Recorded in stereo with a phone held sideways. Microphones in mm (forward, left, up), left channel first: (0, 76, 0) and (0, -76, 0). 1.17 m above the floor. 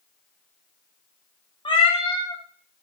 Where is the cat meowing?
30° left (ahead or behind), 0.6 m.